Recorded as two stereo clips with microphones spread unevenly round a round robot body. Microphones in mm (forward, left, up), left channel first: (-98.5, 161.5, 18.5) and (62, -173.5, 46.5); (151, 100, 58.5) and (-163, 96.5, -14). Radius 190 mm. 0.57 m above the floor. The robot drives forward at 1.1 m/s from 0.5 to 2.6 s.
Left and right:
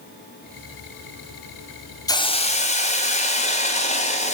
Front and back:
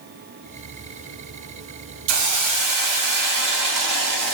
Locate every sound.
2.1 s a hiss: 165° right, 0.5 m; by 4.3 s 175° right, 1.1 m